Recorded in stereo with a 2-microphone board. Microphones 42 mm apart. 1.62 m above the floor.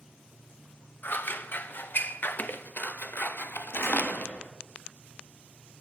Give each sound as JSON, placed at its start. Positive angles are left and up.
{"t": 1.0, "sound": "scissors", "side_deg": 55, "distance_m": 0.7}
{"t": 3.7, "sound": "a door slam", "side_deg": 70, "distance_m": 2.0}